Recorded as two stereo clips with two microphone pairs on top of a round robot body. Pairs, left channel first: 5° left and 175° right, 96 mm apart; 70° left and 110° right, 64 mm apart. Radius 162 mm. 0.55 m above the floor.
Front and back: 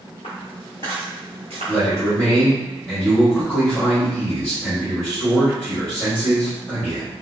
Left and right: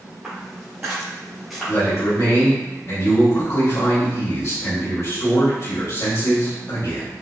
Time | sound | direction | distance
0.2 | footsteps | 20° right | 0.8 m
1.7 | a man speaking | 75° left | 1.9 m